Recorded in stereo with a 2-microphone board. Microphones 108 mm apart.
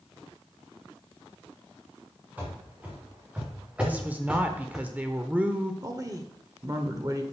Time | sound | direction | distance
2.4 | running footsteps | 15° right (ahead or behind) | 4 m
3.8 | a woman speaking | 15° right (ahead or behind) | 0.8 m
5.8 | a woman speaking | 35° right (ahead or behind) | 1.0 m